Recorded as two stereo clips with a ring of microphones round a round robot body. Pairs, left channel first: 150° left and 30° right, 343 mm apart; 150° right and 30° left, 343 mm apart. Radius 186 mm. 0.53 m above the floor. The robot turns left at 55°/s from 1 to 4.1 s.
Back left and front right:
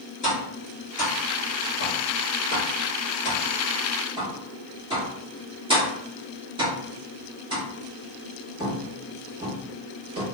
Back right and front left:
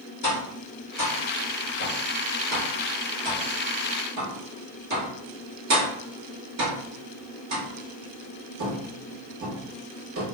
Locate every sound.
0.2 s tapping: 150° right, 1.5 m; by 10.2 s 40° left, 1.5 m